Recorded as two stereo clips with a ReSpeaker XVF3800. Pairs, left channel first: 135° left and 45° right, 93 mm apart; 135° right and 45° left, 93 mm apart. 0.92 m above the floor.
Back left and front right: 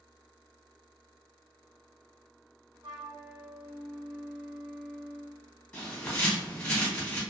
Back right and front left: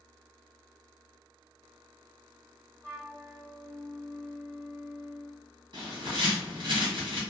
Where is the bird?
60° left, 1.3 m.